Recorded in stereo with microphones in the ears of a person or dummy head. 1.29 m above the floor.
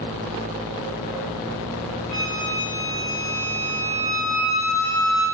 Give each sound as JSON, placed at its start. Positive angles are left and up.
{"t": 2.1, "sound": "a flute", "side_deg": -5, "distance_m": 0.8}